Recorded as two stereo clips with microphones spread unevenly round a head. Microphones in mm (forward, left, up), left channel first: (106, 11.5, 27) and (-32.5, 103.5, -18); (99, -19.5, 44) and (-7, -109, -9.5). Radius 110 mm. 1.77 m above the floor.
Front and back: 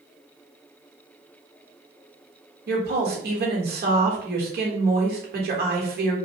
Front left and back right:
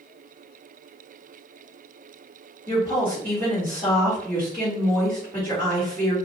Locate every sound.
2.7 s a woman speaking: 115° left, 1.2 m